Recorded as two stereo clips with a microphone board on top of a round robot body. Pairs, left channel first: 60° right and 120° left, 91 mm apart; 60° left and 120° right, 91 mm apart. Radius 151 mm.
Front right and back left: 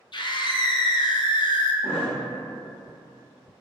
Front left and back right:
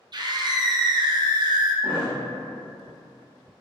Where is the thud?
85° right, 0.8 m.